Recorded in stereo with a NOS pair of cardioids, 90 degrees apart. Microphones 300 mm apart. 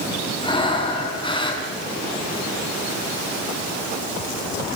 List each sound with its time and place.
0.4 s breathing: 15° left, 5 m